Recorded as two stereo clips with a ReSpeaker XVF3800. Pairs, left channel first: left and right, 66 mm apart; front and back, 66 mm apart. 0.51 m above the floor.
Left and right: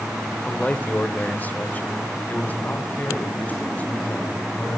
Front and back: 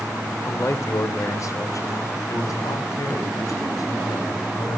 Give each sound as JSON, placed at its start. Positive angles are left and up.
{"t": 0.5, "sound": "a man speaking", "azimuth_deg": 30, "distance_m": 2.0}